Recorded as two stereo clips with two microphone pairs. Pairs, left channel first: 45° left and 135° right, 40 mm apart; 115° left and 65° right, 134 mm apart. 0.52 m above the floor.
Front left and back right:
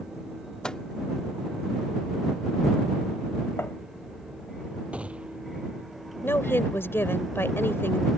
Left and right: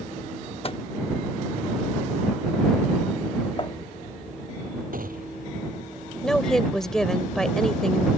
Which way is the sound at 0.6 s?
110° left.